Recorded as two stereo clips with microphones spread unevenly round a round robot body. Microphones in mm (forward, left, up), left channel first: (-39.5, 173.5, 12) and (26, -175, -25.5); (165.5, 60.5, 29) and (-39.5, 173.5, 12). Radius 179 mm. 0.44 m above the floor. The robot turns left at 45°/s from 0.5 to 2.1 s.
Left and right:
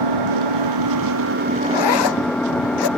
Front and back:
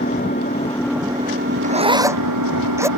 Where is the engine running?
100° right; by 3.0 s 170° right.